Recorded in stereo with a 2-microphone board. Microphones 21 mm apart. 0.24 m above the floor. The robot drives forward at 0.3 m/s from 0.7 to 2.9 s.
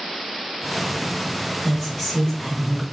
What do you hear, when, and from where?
1.6 s a woman speaking: 20° left (ahead or behind), 1.2 m; by 2.8 s 15° left (ahead or behind), 1.4 m